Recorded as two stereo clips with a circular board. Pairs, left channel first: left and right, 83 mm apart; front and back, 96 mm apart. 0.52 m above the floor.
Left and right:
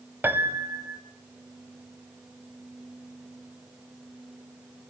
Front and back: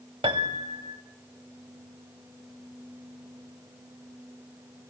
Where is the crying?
No crying in this recording.